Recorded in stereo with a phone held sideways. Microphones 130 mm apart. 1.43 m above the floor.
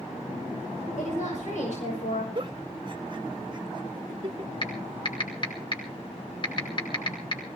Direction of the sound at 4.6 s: 40° left (ahead or behind).